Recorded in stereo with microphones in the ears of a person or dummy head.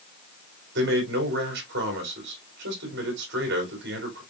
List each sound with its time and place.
0.8 s a man speaking: 55° right (ahead or behind), 3 m